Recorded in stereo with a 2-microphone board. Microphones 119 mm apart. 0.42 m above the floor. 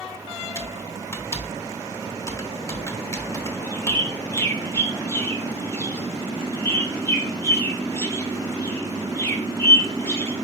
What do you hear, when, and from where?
0.6 s typing on a keyboard: 25° left (ahead or behind), 0.7 m
3.4 s a bird: 20° left (ahead or behind), 0.9 m